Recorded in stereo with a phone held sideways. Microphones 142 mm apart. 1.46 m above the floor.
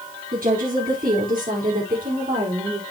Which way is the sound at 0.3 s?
80° right.